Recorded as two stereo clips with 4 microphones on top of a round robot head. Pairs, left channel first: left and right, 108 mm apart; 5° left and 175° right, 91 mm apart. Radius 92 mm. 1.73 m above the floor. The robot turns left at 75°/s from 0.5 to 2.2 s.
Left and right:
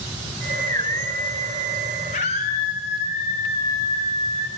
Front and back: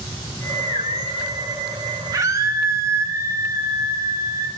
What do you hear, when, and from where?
2.1 s a scream: 140° left, 1.3 m; by 4.5 s 130° left, 1.3 m